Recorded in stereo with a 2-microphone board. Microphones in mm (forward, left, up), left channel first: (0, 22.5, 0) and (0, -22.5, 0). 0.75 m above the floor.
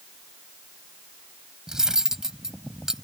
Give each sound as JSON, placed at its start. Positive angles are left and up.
{"t": 1.7, "sound": "cutlery clinking", "side_deg": -10}